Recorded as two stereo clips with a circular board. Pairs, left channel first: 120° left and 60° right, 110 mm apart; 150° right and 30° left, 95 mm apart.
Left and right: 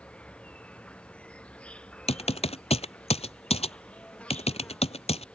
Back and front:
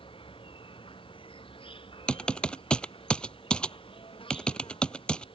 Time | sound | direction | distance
0.0 | an insect | 160° right | ?
2.1 | typing on a keyboard | 130° left | ?